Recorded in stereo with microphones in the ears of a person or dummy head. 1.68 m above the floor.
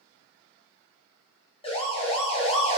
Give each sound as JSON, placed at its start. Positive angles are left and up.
{"t": 1.6, "sound": "a siren", "side_deg": 30, "distance_m": 7.0}